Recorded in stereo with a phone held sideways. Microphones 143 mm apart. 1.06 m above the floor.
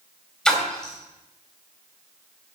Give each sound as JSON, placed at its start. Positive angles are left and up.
{"t": 0.5, "sound": "a splash", "side_deg": 5, "distance_m": 3.5}